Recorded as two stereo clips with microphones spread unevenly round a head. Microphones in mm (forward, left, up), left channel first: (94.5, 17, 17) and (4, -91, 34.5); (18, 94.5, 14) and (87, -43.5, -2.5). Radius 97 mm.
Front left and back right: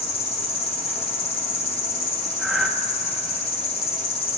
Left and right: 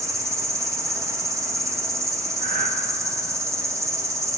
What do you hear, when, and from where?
0.0 s an insect: 5° left, 1.6 m
2.4 s breathing: 40° right, 2 m